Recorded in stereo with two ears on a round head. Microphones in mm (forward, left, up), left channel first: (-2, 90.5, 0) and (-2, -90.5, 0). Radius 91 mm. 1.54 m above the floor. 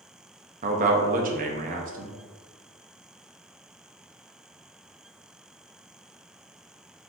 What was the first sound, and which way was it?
A man speaking, 40° right (ahead or behind).